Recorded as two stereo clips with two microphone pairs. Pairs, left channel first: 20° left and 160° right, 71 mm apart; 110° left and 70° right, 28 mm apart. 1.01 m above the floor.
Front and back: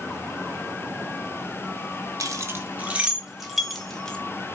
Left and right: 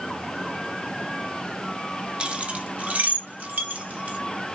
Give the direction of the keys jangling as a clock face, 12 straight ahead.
4 o'clock.